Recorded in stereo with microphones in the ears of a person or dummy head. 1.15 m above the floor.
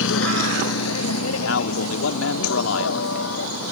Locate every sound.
0.0 s a vehicle: 70° left (ahead or behind); by 3.7 s 75° left (ahead or behind)
1.4 s a man speaking: 80° left